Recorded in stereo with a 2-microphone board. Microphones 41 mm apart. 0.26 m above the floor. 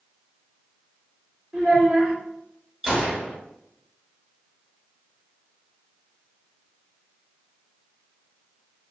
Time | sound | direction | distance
1.5 | a child speaking | 55° right (ahead or behind) | 1.9 m
2.8 | a gunshot | 15° right (ahead or behind) | 1.0 m